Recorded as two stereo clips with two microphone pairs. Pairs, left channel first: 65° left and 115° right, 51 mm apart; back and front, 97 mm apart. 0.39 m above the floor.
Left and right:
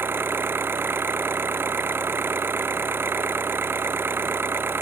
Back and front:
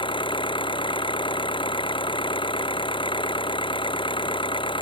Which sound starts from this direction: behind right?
An engine running, at 0.0 s.